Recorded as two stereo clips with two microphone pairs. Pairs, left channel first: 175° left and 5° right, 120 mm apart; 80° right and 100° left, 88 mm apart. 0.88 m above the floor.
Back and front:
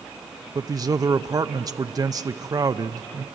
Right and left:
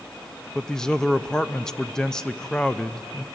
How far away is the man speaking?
About 0.6 m.